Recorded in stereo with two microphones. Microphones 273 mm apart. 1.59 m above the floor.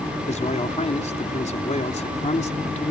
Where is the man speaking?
25° left (ahead or behind).